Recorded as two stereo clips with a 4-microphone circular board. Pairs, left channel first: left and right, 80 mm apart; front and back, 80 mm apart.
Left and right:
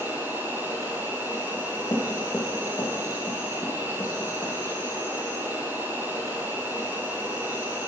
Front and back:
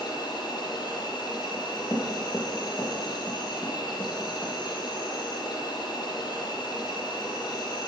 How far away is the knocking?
About 4.5 m.